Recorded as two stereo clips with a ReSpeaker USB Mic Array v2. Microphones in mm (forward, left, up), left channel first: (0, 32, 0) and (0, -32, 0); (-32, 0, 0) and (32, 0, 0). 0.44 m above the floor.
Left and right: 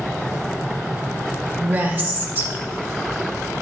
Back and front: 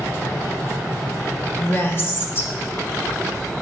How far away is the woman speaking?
About 1.2 m.